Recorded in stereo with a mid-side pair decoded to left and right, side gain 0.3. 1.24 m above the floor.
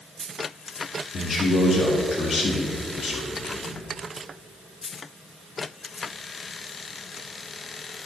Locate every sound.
1.1 s a man speaking: 65° left, 1.8 m